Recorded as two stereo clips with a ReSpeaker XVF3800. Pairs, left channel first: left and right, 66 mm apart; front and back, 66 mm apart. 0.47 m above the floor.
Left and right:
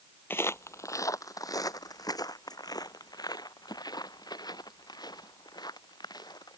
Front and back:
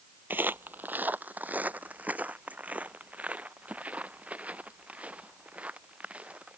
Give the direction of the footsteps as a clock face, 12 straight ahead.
8 o'clock.